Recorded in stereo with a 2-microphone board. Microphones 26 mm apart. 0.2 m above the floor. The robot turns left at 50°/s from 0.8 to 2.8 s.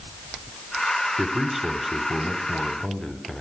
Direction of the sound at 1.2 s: 15° right (ahead or behind).